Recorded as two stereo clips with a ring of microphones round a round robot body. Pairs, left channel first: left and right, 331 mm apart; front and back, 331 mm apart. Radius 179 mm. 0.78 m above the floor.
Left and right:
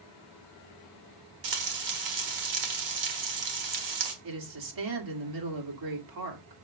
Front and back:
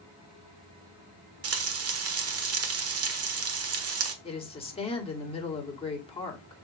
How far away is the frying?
About 1.5 m.